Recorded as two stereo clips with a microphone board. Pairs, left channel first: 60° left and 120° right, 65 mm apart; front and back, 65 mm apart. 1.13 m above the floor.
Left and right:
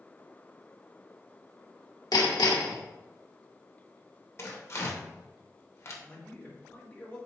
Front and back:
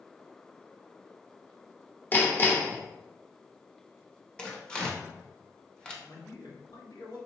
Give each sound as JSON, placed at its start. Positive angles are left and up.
{"t": 2.1, "sound": "hammering", "azimuth_deg": 60, "distance_m": 0.8}
{"t": 4.4, "sound": "tearing paper", "azimuth_deg": 75, "distance_m": 0.9}
{"t": 6.0, "sound": "a man speaking", "azimuth_deg": -5, "distance_m": 1.5}